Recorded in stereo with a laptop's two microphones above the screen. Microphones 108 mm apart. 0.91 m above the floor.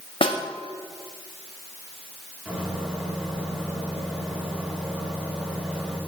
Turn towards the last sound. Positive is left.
turn(degrees=-15)  # may be behind; listen again after turning